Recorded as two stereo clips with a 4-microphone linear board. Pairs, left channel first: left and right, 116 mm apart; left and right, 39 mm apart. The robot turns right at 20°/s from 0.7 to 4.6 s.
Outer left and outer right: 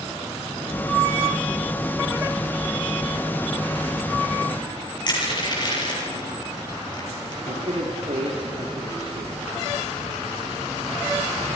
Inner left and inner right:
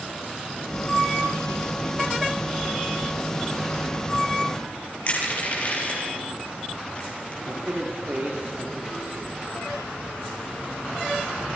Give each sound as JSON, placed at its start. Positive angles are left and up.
{"t": 5.1, "sound": "crushing", "side_deg": 40, "distance_m": 8.0}
{"t": 7.5, "sound": "a man speaking", "side_deg": -75, "distance_m": 3.5}